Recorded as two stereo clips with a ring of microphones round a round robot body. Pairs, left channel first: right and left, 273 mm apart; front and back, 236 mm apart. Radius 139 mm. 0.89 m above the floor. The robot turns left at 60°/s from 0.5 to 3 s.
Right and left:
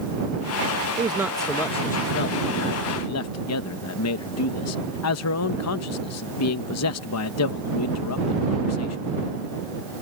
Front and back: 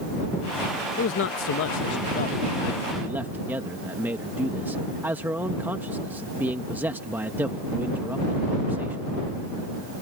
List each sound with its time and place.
1.0 s a man speaking: 25° left; by 9.0 s 100° right